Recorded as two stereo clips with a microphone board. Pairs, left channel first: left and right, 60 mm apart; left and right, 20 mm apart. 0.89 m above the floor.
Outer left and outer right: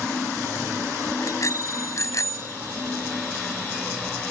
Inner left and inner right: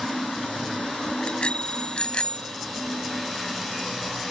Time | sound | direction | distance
1.2 | a bicycle bell | 65° left (ahead or behind) | ?